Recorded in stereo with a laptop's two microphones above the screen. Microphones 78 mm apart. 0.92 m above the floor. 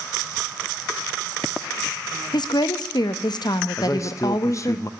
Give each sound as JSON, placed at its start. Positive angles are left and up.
{"t": 2.3, "sound": "a woman speaking", "side_deg": 70, "distance_m": 0.7}
{"t": 3.8, "sound": "a man speaking", "side_deg": 45, "distance_m": 0.7}